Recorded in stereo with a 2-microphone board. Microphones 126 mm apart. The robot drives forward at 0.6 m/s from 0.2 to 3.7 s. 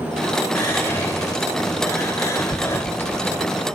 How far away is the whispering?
About 1.3 m.